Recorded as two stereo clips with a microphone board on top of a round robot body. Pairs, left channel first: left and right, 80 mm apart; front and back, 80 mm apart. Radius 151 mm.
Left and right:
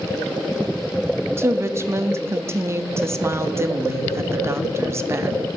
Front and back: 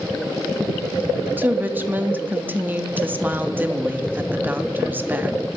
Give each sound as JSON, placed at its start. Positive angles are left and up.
{"t": 1.4, "sound": "a woman speaking", "azimuth_deg": -125, "distance_m": 0.7}